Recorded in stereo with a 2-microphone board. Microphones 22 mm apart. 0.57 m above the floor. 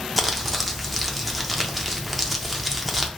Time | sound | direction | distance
0.2 | crumpling | centre (ahead or behind) | 0.5 m